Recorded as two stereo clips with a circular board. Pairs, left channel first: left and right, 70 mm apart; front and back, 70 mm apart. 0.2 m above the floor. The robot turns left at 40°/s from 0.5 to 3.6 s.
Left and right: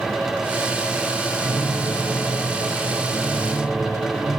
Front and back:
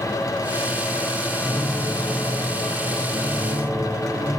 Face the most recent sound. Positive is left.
turn(degrees=180)